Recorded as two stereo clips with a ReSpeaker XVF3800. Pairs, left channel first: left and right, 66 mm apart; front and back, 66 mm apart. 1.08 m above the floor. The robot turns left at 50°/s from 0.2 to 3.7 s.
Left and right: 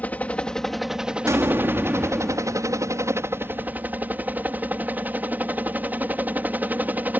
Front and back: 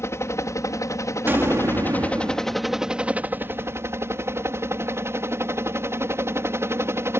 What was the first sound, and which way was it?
A helicopter, 30° left.